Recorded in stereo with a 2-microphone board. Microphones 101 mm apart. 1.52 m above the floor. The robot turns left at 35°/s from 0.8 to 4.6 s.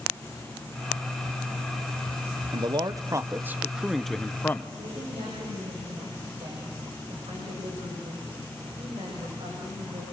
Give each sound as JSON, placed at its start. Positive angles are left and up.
{"t": 2.5, "sound": "a man speaking", "azimuth_deg": -130, "distance_m": 1.1}
{"t": 4.8, "sound": "a woman speaking", "side_deg": -75, "distance_m": 7.5}